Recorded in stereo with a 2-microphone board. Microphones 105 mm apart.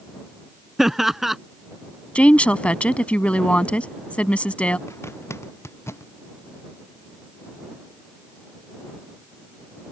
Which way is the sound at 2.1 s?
10° left (ahead or behind).